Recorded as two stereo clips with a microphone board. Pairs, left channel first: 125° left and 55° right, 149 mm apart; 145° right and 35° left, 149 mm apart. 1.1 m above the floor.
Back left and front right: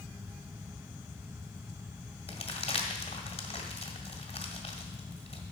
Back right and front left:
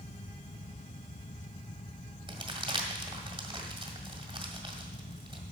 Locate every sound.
2.3 s crumpling: 80° left, 1.7 m